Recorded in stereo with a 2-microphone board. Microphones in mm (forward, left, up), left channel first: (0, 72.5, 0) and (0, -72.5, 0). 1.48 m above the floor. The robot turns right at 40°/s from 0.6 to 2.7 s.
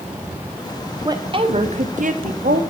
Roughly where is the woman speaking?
Behind right.